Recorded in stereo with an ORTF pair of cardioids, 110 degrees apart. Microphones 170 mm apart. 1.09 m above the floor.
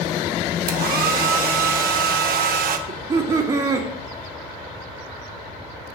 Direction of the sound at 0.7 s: 55° right.